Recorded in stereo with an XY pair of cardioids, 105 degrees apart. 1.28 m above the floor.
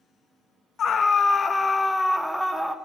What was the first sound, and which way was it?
A scream, 55° left.